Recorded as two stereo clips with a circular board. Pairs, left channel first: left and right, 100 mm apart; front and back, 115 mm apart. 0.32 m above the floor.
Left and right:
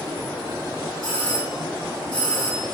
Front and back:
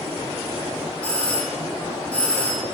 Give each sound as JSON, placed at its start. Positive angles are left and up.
{"t": 1.0, "sound": "a doorbell", "azimuth_deg": 75, "distance_m": 2.5}